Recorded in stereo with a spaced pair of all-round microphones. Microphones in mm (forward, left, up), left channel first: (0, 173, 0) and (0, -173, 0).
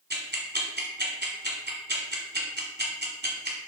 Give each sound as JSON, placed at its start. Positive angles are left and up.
{"t": 0.1, "sound": "ticking", "side_deg": -30, "distance_m": 1.7}